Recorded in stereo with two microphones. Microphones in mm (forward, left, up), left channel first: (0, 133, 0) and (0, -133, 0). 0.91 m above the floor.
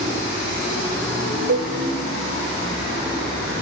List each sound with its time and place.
1.5 s a cowbell: 70° right (ahead or behind), 1.6 m